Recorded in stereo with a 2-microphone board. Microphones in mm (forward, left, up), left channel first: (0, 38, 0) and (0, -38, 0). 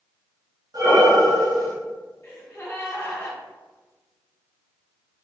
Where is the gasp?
35° left (ahead or behind), 1.7 m.